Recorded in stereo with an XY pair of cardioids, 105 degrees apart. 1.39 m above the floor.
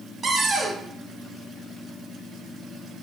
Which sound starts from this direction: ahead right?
A cupboard door, at 0.2 s.